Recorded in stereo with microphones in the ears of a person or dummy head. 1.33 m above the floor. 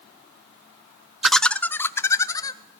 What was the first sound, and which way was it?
Laughter, 5° left (ahead or behind).